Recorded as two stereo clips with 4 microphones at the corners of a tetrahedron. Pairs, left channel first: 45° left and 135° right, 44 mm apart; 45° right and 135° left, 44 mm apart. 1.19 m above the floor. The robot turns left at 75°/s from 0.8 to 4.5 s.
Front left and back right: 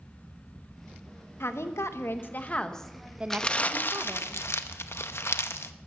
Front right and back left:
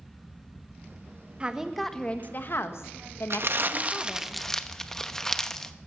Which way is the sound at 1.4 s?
70° left.